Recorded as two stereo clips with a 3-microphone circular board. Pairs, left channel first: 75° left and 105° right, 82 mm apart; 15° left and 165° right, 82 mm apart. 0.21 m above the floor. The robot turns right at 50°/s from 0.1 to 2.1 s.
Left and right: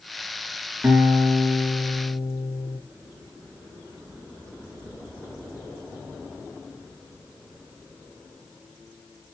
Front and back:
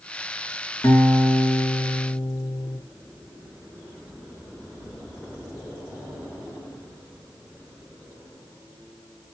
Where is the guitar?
35° right, 3 m; by 2.8 s 30° left, 3 m.